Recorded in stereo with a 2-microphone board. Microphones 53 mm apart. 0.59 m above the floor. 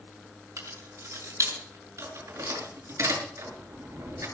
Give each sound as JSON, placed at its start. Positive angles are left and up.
{"t": 0.6, "sound": "keys jangling", "side_deg": -85, "distance_m": 4.5}